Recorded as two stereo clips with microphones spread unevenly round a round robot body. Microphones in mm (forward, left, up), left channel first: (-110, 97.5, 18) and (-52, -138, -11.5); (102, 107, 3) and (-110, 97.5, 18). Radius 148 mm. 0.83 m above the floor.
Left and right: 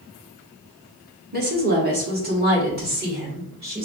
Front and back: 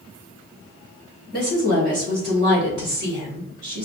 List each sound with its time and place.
1.3 s a woman speaking: 120° right, 1.6 m; by 3.9 s 125° right, 3 m